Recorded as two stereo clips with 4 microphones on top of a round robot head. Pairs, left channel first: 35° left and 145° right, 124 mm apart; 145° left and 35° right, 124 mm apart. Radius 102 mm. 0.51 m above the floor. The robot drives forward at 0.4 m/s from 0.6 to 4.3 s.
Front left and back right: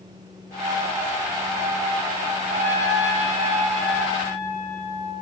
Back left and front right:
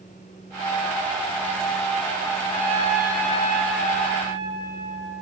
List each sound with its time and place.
2.5 s a trumpet: 175° right, 5.5 m